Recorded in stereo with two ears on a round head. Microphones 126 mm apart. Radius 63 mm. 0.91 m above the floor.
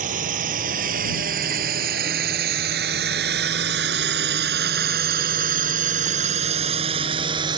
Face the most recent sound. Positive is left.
turn(degrees=-30)  # may be behind; listen again after turning